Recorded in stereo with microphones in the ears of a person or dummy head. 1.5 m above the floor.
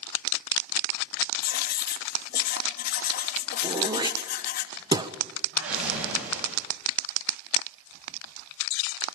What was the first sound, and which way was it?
Writing, 60° left (ahead or behind).